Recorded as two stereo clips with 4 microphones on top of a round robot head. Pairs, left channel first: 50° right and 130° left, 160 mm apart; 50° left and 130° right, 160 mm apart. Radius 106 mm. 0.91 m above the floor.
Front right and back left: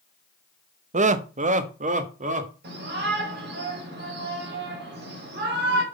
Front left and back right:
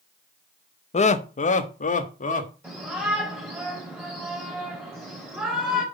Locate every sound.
0.9 s laughter: 90° left, 0.9 m
2.6 s a shout: 150° left, 5.5 m